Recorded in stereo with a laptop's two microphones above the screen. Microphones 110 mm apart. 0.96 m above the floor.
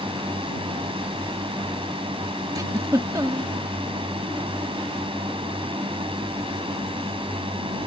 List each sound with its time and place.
0.0 s a drone: 55° right (ahead or behind)
2.5 s a giggle: 35° right (ahead or behind)